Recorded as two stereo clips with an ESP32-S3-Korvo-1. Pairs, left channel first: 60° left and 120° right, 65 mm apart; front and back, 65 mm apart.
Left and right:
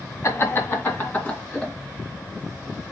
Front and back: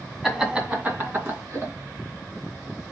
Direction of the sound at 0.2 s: 90° left.